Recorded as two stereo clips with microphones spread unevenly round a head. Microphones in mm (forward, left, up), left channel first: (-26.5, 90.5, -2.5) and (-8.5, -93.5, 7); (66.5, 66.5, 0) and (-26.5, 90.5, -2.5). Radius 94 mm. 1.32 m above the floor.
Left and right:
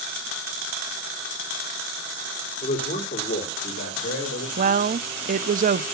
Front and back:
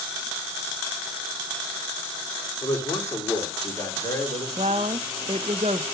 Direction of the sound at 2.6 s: 40° left.